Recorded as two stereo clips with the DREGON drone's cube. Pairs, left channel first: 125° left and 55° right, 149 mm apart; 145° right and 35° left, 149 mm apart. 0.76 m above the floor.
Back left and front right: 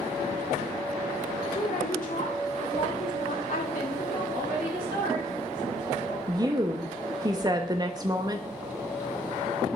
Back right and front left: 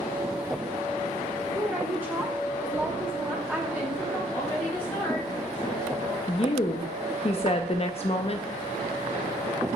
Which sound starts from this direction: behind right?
A woman speaking, at 6.3 s.